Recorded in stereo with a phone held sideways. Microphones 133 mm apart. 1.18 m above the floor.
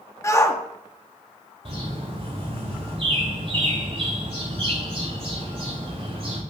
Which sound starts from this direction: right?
A bird, at 1.6 s.